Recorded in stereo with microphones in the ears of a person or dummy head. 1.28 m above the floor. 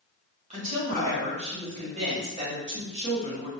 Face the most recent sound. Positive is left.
turn(degrees=-35)  # may be behind; listen again after turning